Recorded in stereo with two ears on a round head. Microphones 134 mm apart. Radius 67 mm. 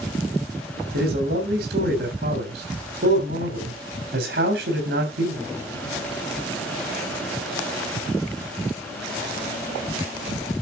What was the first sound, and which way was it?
A man speaking, 80° right.